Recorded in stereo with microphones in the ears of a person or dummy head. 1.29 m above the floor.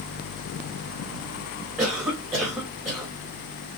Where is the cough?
10° right (ahead or behind), 1.3 m.